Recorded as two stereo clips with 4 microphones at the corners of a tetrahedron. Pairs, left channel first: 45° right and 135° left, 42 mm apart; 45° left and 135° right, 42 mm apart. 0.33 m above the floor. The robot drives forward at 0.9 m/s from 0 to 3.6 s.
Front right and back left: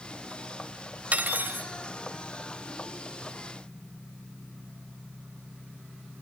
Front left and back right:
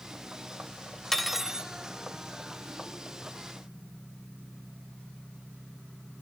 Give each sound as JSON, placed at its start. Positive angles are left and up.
{"t": 1.1, "sound": "cutlery clinking", "azimuth_deg": 125, "distance_m": 0.6}